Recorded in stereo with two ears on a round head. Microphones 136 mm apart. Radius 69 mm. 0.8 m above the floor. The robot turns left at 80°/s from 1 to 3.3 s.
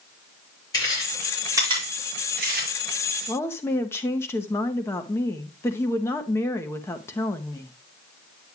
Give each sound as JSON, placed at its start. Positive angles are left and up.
{"t": 0.7, "sound": "chewing", "side_deg": 25, "distance_m": 6.0}
{"t": 3.3, "sound": "a woman speaking", "side_deg": 15, "distance_m": 0.8}